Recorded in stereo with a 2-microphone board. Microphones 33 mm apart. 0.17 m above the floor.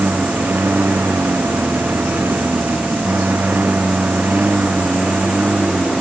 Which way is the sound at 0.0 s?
65° right (ahead or behind).